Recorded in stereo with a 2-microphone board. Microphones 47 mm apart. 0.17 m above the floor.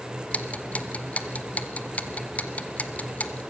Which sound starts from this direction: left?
Ticking, at 0.3 s.